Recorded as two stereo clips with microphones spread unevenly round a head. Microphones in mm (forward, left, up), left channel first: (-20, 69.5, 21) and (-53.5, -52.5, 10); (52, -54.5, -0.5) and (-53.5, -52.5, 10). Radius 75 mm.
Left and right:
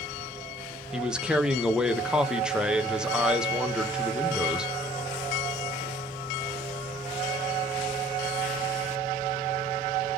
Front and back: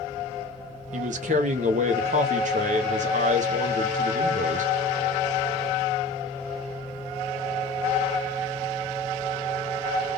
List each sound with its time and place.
0.9 s a man speaking: 170° left, 0.9 m